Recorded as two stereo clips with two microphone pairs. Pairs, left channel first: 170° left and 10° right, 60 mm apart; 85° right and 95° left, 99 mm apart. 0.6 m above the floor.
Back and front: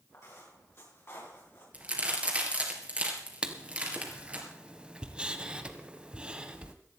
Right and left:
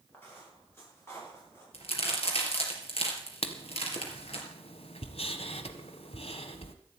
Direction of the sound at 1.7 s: 80° right.